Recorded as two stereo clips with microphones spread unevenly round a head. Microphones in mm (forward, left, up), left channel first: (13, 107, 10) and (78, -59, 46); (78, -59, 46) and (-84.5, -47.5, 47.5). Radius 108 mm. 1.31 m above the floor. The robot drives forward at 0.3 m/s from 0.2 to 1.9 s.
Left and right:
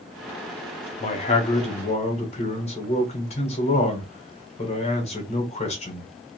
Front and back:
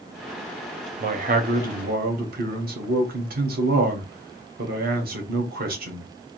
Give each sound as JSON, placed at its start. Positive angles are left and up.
{"t": 1.0, "sound": "a man speaking", "azimuth_deg": 145, "distance_m": 0.7}